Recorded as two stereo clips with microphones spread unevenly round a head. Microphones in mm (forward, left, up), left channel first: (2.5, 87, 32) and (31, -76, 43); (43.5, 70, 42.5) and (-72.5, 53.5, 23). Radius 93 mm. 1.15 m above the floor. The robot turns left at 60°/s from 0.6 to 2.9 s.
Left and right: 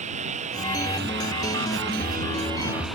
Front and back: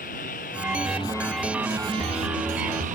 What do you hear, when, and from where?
0.0 s a lawn mower: 30° right; by 3.0 s 170° right